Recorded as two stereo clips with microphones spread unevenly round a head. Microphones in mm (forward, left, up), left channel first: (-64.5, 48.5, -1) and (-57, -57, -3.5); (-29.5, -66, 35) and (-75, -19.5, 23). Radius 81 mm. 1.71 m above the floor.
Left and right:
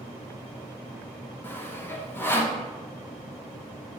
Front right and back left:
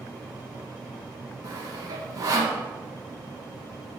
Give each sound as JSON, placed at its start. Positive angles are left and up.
{"t": 1.4, "sound": "sawing", "azimuth_deg": 155, "distance_m": 1.1}